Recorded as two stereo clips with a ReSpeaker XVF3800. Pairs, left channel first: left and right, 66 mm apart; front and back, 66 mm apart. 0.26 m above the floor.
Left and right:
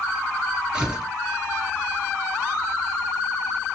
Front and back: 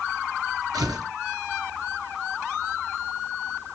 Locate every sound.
0.7 s tearing paper: 165° right, 1.1 m